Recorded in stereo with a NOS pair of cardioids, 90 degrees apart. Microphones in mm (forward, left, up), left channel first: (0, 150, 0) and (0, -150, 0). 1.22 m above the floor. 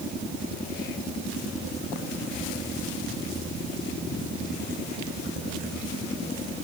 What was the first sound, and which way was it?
Only background noise.